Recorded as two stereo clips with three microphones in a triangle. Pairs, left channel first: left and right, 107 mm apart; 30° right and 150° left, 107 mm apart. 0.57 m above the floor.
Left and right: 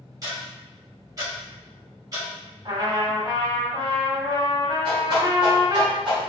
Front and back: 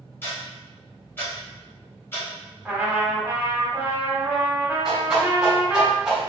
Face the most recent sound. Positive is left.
turn(degrees=-130)